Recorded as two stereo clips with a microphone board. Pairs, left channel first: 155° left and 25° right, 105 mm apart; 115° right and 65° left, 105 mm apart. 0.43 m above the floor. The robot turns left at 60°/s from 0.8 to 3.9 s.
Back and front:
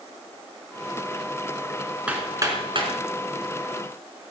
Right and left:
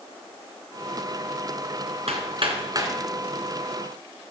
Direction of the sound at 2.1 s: 55° left.